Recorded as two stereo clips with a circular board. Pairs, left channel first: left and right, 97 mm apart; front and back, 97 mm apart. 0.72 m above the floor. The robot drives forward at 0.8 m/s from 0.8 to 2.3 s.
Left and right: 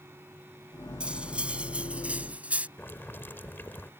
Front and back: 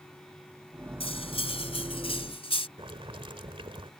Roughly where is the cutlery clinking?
Ahead.